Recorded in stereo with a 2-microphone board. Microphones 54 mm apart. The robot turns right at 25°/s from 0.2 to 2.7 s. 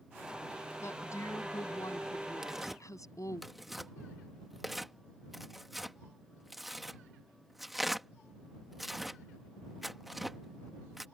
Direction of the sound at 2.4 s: 10° right (ahead or behind).